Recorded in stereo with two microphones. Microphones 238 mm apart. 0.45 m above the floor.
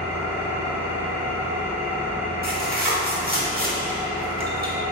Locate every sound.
0.0 s an engine running: 10° right (ahead or behind), 0.8 m
2.4 s tearing paper: 35° right (ahead or behind), 0.9 m